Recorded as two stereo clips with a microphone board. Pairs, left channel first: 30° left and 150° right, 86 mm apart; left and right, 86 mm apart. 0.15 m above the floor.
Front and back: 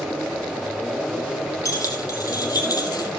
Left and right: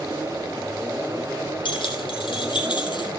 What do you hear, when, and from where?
1.6 s keys jangling: 80° left, 4 m; by 3.1 s 70° left, 3 m